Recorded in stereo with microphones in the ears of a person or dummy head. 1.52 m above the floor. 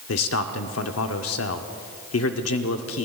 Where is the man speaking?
75° left (ahead or behind), 0.8 m.